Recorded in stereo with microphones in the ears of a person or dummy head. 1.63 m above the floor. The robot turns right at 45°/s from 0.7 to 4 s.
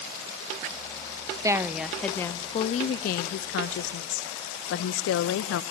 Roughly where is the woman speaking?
Ahead.